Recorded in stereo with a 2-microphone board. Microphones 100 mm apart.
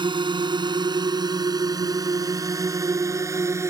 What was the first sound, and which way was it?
A drone, 55° right (ahead or behind).